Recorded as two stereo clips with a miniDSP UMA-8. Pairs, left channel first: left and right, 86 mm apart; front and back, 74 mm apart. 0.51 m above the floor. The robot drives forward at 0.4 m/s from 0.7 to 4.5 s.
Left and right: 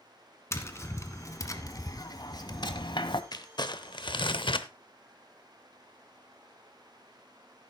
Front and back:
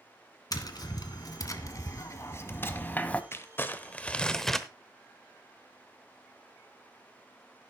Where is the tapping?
35° left, 1.5 m; by 3.2 s 70° left, 0.9 m.